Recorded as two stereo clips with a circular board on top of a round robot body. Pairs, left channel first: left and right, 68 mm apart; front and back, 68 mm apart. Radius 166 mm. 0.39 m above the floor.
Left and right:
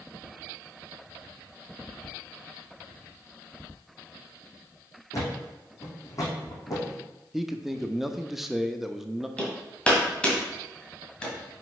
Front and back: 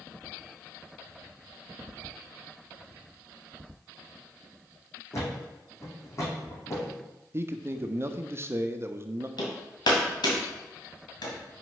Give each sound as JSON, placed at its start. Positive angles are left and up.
{"t": 5.1, "sound": "a thud", "azimuth_deg": 50, "distance_m": 3.0}
{"t": 7.3, "sound": "a man speaking", "azimuth_deg": -175, "distance_m": 0.9}
{"t": 9.4, "sound": "hammering", "azimuth_deg": 15, "distance_m": 1.9}